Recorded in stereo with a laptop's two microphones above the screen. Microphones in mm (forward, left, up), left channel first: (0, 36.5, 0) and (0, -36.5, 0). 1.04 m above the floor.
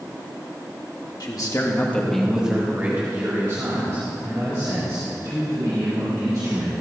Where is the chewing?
No chewing in this recording.